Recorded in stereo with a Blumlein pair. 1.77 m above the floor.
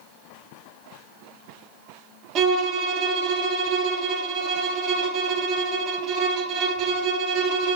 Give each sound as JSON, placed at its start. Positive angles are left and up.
{"t": 2.4, "sound": "a violin", "azimuth_deg": -30, "distance_m": 0.6}